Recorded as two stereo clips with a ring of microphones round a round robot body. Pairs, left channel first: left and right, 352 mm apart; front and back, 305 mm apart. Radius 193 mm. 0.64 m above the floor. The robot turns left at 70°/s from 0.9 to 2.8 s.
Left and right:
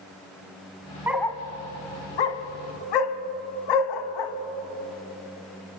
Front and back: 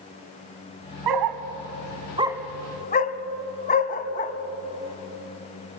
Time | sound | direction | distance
1.1 | a dog barking | 175° right | 1.3 m